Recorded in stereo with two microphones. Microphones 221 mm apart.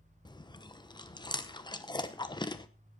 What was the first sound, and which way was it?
Chewing, 20° left (ahead or behind).